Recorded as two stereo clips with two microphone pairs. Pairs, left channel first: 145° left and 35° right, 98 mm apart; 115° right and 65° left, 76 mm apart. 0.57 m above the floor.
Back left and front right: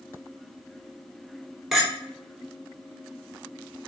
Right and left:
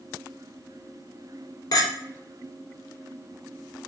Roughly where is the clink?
Behind right.